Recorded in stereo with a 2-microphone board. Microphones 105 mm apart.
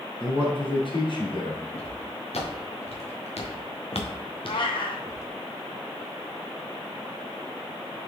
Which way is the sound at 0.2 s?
55° left (ahead or behind).